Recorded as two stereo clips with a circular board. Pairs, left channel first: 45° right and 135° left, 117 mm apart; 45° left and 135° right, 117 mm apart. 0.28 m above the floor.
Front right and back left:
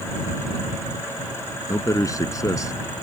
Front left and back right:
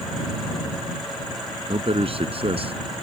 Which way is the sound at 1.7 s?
105° right.